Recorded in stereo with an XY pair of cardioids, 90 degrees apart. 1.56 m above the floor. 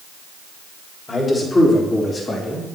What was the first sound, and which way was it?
A man speaking, 30° left.